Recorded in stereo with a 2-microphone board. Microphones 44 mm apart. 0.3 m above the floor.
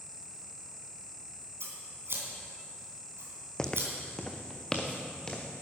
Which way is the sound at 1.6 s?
65° right (ahead or behind).